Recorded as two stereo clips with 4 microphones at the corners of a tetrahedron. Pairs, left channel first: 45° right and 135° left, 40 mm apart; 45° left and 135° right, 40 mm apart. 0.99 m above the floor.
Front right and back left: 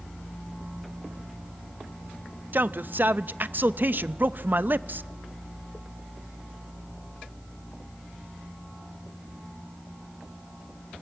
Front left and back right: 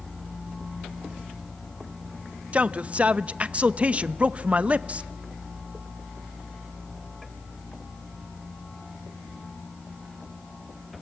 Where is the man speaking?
170° left, 0.6 m.